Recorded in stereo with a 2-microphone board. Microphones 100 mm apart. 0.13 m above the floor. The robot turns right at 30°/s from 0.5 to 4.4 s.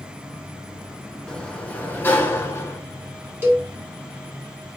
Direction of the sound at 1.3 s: 15° left.